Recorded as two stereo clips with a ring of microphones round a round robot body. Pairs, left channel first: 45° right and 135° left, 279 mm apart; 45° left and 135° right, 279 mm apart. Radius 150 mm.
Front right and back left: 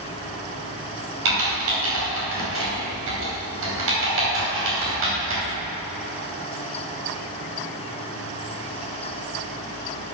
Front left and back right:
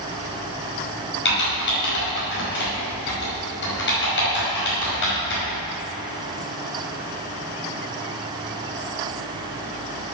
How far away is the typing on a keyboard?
About 5 m.